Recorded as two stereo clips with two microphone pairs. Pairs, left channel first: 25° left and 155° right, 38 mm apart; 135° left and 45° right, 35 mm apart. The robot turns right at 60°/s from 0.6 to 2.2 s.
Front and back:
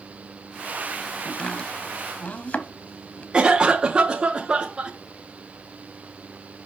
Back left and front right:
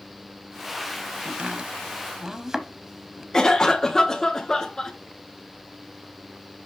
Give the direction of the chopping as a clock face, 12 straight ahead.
1 o'clock.